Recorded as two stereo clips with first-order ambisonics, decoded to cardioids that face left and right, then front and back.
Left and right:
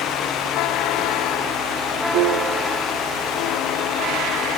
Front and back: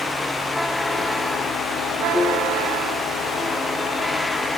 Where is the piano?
85° right, 0.9 m.